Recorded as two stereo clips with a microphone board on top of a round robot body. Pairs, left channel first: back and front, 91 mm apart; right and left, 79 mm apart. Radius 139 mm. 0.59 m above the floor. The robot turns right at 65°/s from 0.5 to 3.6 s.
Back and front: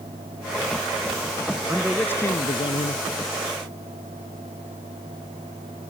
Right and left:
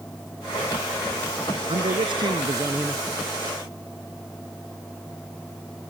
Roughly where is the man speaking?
Left.